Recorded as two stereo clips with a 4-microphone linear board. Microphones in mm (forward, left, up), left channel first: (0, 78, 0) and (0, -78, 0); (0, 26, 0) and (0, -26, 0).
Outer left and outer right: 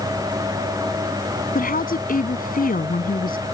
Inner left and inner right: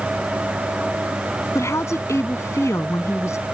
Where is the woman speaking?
60° left (ahead or behind).